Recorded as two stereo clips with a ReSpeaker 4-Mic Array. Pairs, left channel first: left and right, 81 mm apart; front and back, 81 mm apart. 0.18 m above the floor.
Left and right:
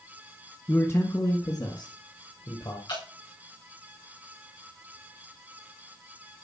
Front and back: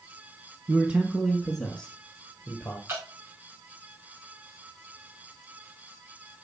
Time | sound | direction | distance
0.7 | a man speaking | 130° left | 1.2 m
2.9 | dripping | 120° left | 5 m